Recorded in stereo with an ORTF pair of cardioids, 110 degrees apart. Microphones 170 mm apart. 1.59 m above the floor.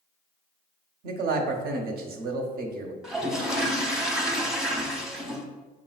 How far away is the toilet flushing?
About 0.8 m.